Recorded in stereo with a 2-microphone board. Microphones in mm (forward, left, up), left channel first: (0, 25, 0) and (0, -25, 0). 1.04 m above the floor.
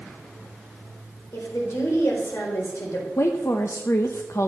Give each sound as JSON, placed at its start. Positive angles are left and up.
{"t": 1.3, "sound": "a woman speaking", "side_deg": 75, "distance_m": 4.0}
{"t": 3.2, "sound": "a woman speaking", "side_deg": 70, "distance_m": 0.8}